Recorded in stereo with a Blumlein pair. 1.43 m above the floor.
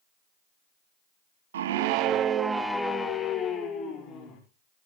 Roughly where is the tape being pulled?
No tape being pulled in this recording.